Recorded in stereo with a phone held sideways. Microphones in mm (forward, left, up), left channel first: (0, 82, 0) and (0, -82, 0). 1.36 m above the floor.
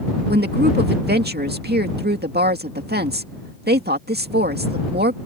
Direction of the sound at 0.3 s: 90° right.